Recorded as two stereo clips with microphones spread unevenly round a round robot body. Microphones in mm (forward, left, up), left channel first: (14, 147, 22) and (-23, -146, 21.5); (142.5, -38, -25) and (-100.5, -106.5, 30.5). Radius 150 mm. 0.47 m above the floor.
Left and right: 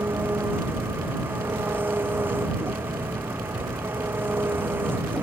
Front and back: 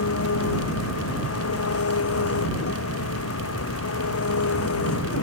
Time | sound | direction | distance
0.0 | an engine running | 15° right | ?